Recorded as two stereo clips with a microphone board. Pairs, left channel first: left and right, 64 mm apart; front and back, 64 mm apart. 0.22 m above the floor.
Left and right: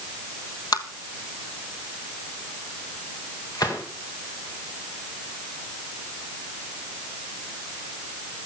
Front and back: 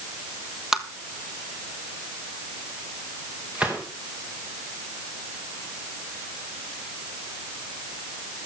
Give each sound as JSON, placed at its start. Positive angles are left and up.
{"t": 0.7, "sound": "tapping", "azimuth_deg": 95, "distance_m": 1.4}
{"t": 3.5, "sound": "a gunshot", "azimuth_deg": 110, "distance_m": 4.5}